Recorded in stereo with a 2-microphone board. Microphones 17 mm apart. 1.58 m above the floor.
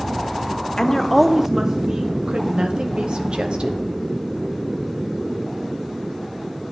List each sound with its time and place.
0.8 s a woman speaking: 35° left (ahead or behind), 0.6 m; by 2.1 s 50° right (ahead or behind), 0.9 m
2.3 s a woman speaking: 70° right (ahead or behind), 1.1 m